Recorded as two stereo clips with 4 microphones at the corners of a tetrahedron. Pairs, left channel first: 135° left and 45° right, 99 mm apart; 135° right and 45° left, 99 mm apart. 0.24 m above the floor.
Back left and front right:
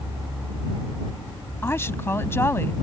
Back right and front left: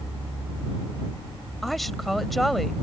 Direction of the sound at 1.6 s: 135° left.